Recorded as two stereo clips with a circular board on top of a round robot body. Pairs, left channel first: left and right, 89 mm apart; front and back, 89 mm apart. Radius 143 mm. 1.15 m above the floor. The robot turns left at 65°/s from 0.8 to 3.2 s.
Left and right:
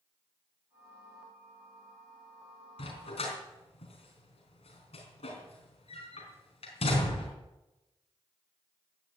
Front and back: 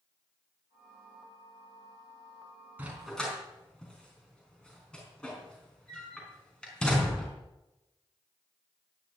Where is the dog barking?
105° left, 4 m; by 7.3 s 80° left, 4 m.